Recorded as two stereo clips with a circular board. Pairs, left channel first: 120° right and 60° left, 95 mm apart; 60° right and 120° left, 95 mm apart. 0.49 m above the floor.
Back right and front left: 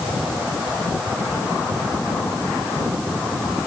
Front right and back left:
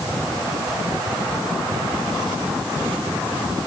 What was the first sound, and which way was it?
Only background noise.